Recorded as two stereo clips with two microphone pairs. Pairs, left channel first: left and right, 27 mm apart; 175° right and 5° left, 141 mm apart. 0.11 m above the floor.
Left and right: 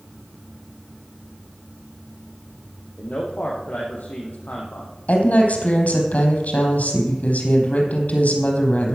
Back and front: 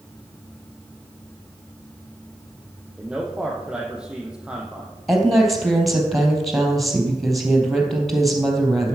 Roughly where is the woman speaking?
Left.